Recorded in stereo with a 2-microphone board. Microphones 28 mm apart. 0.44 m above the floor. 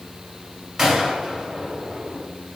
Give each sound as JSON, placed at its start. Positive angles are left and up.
{"t": 0.8, "sound": "a gunshot", "side_deg": -10, "distance_m": 2.0}